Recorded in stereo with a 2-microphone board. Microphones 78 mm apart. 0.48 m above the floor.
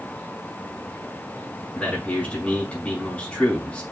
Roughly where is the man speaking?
Centre.